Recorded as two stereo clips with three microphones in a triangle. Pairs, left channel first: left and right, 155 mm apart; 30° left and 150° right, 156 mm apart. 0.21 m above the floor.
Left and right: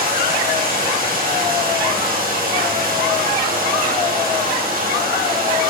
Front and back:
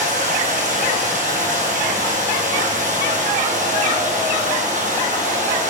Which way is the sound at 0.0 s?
115° right.